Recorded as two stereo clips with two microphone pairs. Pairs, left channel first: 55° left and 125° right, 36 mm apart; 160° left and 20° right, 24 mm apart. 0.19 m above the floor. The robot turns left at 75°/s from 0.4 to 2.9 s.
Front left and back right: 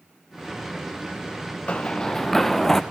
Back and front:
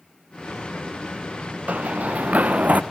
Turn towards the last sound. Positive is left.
turn(degrees=-35)